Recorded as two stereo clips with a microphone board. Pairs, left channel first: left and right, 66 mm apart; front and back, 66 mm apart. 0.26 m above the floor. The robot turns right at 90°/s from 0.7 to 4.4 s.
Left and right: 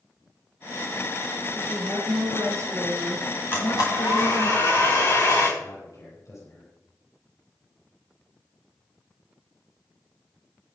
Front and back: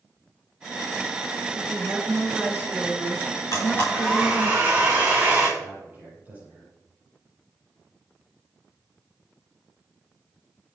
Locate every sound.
1.6 s a woman speaking: 145° right, 3 m; by 4.5 s 115° left, 3 m
3.5 s a blender: 35° left, 7.5 m; by 5.5 s 115° left, 7.5 m
5.6 s a man speaking: 120° left, 6.5 m